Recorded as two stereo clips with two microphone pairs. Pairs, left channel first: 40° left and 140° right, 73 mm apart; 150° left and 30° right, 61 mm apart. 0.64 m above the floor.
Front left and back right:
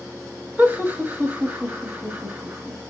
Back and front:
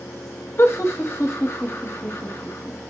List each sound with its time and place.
0.6 s laughter: 170° left, 0.9 m